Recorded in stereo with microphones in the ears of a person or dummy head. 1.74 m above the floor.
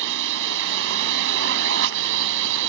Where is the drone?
70° right (ahead or behind).